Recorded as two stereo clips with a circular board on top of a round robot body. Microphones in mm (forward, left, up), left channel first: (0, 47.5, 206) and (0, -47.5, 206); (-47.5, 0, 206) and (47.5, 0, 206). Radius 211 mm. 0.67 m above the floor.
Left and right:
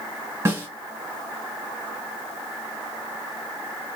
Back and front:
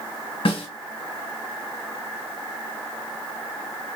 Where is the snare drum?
150° right, 2 m.